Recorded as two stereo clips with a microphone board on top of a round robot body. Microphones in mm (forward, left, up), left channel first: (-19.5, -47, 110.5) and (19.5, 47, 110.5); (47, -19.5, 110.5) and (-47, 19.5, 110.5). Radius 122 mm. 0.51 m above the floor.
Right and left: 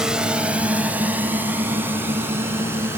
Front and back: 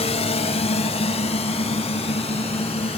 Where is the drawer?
I don't hear a drawer.